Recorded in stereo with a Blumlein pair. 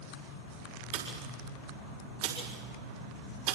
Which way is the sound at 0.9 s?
45° right.